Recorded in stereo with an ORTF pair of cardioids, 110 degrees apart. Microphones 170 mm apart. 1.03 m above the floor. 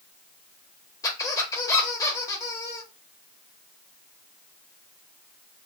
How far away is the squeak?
About 0.9 m.